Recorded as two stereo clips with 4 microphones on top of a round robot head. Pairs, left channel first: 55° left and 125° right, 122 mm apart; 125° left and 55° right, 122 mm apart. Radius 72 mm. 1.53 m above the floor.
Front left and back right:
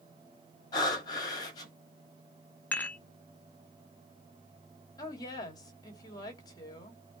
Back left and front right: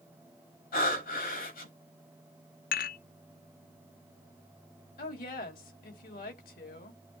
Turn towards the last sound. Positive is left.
turn(degrees=115)